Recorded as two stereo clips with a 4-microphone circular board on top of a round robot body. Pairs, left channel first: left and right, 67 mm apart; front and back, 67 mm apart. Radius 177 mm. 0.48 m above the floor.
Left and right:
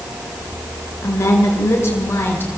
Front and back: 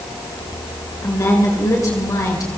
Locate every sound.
1.0 s a woman speaking: 40° left, 7.5 m; by 2.6 s 30° left, 6.5 m